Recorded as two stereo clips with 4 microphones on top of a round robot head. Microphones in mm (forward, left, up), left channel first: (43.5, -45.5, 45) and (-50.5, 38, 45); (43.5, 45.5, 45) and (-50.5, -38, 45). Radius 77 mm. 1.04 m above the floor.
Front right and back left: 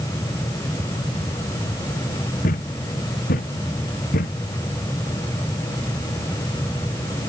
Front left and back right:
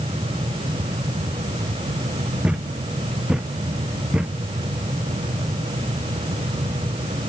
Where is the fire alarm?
I don't hear a fire alarm.